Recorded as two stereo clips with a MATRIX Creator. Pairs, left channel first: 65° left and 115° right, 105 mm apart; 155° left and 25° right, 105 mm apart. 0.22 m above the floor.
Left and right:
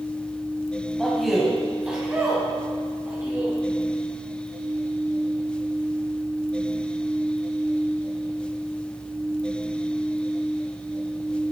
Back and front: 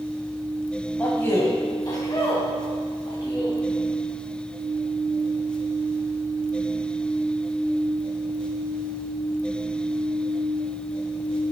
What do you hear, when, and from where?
1.0 s a man speaking: 145° left, 1.1 m; by 3.6 s 175° right, 2 m